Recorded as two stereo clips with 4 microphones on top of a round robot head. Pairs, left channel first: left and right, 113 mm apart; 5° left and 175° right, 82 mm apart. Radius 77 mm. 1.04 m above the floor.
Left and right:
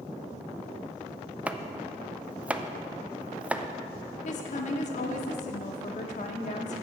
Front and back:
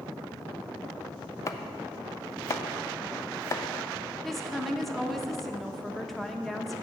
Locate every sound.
1.5 s chopping: 15° right, 0.5 m
4.2 s a woman speaking: 95° left, 1.0 m